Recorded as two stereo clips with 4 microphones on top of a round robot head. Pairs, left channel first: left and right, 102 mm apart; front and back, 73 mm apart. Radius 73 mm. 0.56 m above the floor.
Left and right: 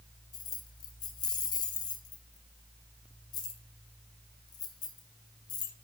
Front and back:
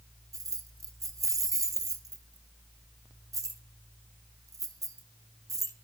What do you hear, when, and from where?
0.3 s keys jangling: 140° left, 1.3 m